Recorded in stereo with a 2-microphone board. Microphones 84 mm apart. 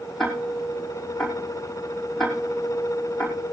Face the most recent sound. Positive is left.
turn(degrees=5)  # may be behind; listen again after turning